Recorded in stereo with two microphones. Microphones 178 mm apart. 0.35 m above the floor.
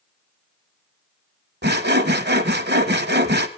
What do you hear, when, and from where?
1.6 s sawing: 70° right (ahead or behind), 1.1 m